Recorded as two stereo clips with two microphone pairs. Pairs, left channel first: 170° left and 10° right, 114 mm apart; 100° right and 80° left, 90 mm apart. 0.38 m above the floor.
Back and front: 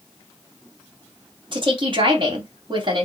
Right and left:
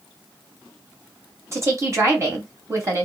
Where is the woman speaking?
25° left, 2.5 m.